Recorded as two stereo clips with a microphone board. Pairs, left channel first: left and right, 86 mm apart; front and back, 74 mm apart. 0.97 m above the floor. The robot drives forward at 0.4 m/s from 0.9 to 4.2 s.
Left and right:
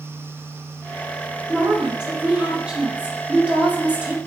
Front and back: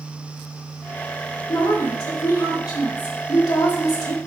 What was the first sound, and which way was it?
A woman speaking, 10° right.